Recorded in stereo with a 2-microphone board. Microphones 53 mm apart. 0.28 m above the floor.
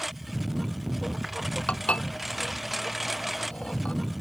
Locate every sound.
0.0 s a lawn mower: centre (ahead or behind)
1.7 s dishes clattering: 20° left (ahead or behind)